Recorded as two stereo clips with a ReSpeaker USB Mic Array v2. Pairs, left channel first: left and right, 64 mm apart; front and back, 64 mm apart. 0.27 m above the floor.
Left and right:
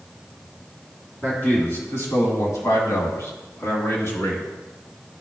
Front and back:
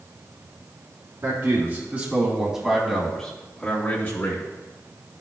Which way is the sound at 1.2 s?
140° left.